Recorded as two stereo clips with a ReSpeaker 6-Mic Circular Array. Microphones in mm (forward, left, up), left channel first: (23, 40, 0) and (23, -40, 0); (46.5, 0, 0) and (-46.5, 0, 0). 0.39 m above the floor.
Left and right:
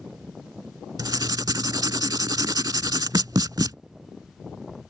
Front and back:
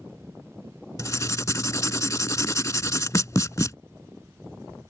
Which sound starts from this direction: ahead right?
Writing, at 1.0 s.